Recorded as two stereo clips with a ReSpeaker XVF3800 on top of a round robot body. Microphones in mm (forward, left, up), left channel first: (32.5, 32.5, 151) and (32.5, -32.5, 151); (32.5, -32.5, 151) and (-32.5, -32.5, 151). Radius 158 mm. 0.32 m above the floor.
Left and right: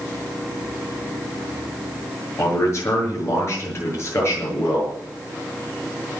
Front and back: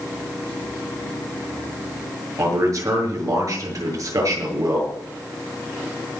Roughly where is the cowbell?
No cowbell in this recording.